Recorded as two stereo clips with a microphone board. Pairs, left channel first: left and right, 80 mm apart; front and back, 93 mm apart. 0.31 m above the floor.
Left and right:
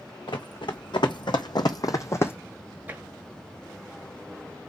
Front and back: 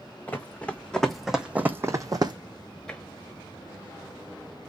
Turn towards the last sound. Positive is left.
turn(degrees=-70)